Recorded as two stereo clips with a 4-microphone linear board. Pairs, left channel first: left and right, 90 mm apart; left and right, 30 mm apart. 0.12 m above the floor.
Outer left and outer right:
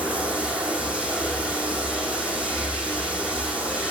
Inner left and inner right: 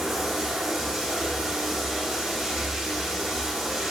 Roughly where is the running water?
Centre.